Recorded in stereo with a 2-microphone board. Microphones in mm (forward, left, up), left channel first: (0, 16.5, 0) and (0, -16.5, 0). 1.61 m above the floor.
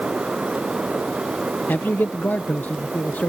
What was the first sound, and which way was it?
A man speaking, 85° left.